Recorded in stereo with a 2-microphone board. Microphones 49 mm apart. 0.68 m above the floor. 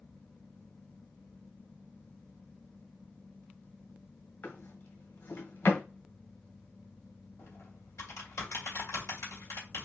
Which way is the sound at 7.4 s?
70° left (ahead or behind).